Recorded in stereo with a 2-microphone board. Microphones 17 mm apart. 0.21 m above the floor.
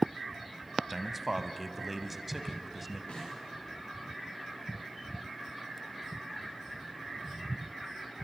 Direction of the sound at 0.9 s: 5° right (ahead or behind).